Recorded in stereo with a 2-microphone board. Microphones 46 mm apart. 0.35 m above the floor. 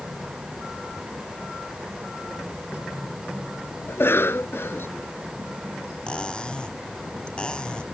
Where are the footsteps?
No footsteps in this recording.